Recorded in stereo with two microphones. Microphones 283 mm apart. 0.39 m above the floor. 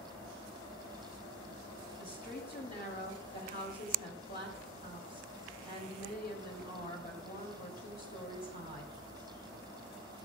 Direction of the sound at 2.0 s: 30° left (ahead or behind).